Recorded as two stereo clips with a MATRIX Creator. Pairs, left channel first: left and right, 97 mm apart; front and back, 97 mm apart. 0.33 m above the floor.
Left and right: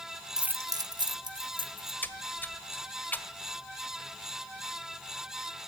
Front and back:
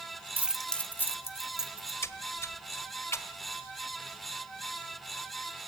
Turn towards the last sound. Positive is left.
turn(degrees=35)